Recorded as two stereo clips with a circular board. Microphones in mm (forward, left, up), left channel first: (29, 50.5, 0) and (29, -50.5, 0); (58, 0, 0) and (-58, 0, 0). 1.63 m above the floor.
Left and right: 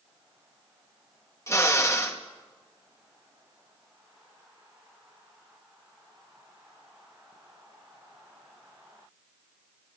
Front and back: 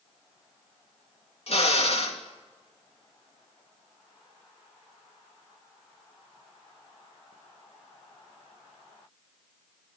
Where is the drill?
30° left, 2.5 m.